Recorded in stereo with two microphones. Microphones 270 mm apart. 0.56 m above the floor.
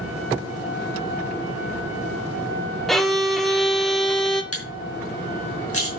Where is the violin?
Centre (ahead or behind), 1.4 m.